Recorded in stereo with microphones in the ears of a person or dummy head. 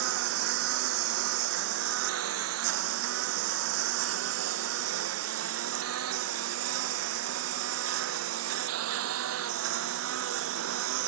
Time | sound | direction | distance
0.0 | a lawn mower | 75° right (ahead or behind) | ?